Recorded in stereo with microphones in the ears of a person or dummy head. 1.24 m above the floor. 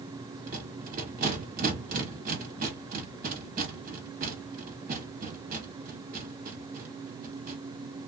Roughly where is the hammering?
No hammering in this recording.